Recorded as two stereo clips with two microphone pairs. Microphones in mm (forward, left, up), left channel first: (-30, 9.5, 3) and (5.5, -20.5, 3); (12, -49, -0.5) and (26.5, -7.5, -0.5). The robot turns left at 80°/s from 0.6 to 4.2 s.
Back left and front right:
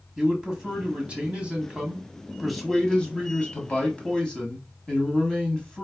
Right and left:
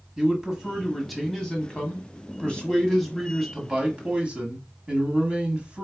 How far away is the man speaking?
About 1.2 m.